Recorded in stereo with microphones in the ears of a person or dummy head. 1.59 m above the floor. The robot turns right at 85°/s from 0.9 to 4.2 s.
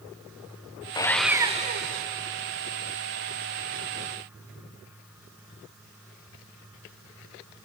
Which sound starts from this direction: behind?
Sawing, at 0.9 s.